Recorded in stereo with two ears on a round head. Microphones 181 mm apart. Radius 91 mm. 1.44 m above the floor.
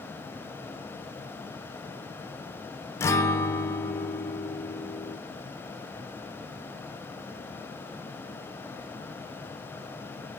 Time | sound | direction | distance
3.0 | a guitar | 15° left (ahead or behind) | 0.6 m